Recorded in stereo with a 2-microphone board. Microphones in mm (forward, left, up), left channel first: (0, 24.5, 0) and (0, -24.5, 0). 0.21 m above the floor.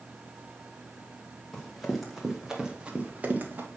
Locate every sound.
1.5 s running footsteps: 5° left (ahead or behind), 3 m; by 3.7 s 45° right (ahead or behind), 2 m